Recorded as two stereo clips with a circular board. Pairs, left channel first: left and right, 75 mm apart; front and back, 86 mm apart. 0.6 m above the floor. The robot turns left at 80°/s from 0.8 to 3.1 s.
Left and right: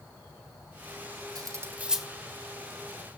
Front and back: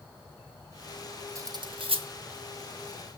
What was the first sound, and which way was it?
Cutlery clinking, 125° right.